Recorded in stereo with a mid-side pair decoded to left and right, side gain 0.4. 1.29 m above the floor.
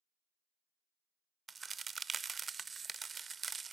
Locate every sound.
1.5 s a crack: 35° right, 0.5 m